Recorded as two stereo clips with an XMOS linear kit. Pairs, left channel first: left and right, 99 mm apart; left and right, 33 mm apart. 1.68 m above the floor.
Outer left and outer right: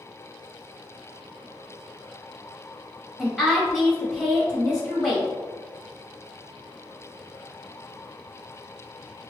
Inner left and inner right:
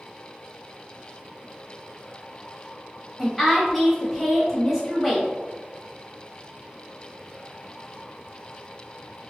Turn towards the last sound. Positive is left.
turn(degrees=-5)  # may be behind; listen again after turning